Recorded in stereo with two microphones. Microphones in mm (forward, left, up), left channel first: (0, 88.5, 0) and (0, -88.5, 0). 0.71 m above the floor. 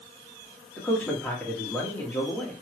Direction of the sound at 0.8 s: 10° left (ahead or behind).